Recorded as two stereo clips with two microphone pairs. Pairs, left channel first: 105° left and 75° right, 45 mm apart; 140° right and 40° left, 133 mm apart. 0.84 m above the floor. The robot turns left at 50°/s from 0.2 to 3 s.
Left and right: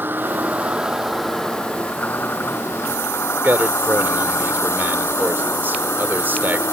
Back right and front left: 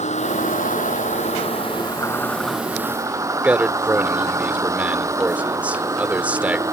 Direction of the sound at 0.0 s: 115° right.